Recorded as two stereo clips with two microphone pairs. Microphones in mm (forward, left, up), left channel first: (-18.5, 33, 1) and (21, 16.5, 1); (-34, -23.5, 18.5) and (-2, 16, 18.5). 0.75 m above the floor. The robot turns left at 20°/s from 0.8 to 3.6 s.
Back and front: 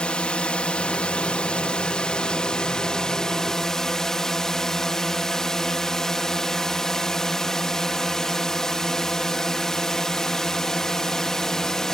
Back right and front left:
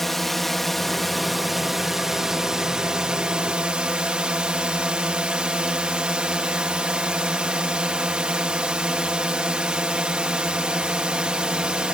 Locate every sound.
0.0 s a drone: 150° left; by 11.9 s 95° left